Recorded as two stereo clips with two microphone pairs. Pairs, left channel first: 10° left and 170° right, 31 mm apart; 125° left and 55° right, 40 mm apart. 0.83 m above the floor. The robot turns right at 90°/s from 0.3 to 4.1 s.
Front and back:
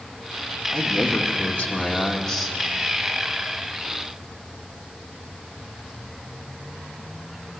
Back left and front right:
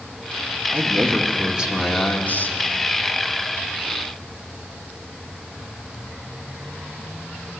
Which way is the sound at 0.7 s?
55° right.